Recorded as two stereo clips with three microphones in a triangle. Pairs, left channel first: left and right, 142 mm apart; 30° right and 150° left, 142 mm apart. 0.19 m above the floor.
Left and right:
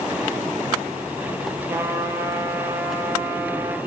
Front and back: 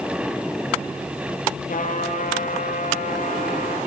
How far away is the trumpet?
About 4.5 m.